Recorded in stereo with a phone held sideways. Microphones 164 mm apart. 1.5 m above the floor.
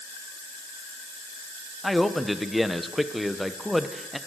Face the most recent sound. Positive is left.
turn(degrees=0)  # may be behind; listen again after turning